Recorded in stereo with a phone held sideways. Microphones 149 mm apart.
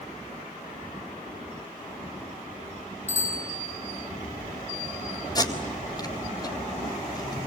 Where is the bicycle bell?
20° right (ahead or behind), 9.5 m.